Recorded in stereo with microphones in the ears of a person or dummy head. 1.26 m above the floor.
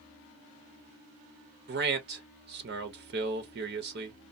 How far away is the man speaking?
About 0.7 m.